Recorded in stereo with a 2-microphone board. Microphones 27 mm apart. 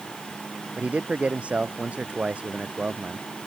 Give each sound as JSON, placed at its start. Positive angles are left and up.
{"t": 0.8, "sound": "a man speaking", "side_deg": -55}